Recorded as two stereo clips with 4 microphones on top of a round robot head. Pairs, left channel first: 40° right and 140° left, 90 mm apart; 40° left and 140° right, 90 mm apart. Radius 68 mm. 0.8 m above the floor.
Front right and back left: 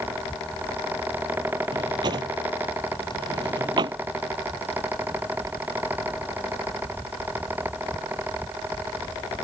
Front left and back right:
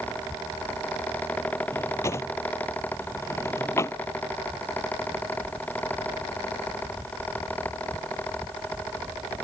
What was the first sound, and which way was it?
A drawer, 100° left.